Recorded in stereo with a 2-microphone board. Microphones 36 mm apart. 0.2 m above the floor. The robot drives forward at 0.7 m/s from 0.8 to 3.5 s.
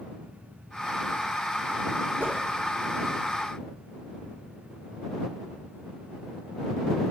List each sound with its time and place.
2.2 s a whoosh: 65° right (ahead or behind), 1.6 m; by 2.4 s 70° right (ahead or behind), 1.5 m